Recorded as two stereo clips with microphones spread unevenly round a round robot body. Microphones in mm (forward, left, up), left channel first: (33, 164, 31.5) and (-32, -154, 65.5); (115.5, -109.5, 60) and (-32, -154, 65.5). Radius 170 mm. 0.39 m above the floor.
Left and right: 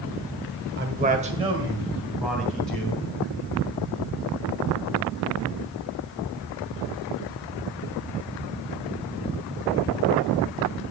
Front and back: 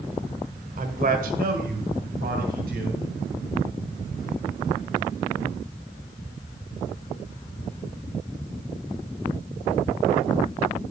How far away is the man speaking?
About 1.5 m.